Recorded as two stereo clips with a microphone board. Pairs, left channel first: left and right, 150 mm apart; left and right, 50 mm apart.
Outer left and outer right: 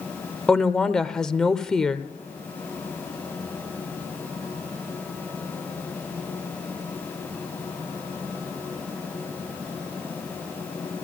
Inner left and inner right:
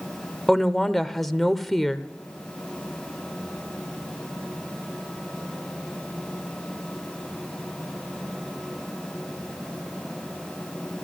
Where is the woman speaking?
5° left (ahead or behind), 0.8 m.